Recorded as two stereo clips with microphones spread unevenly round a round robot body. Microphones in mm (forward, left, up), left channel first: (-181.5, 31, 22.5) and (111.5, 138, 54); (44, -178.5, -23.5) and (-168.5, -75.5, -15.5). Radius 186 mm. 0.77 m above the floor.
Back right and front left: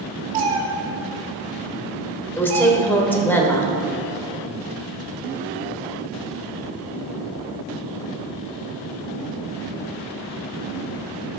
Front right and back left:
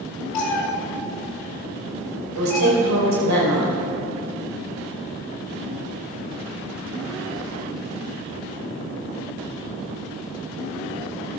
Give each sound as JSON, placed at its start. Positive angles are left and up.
{"t": 0.3, "sound": "a cat meowing", "azimuth_deg": -5, "distance_m": 1.5}
{"t": 2.4, "sound": "a woman speaking", "azimuth_deg": 115, "distance_m": 3.0}